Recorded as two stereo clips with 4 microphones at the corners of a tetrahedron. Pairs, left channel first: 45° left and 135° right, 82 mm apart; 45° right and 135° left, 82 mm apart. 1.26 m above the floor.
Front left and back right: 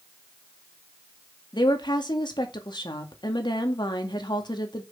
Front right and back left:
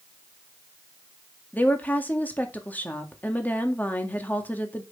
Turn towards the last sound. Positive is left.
turn(degrees=25)